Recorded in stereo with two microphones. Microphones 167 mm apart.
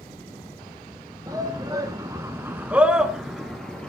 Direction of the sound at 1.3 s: 20° right (ahead or behind).